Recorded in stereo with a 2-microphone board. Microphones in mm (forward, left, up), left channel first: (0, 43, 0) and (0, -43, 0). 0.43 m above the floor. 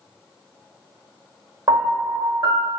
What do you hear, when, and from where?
1.7 s a piano: 55° right (ahead or behind), 0.9 m